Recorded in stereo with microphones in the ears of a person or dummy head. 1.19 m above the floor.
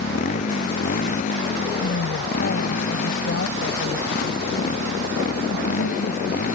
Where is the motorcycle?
40° left (ahead or behind); by 6.5 s 45° left (ahead or behind).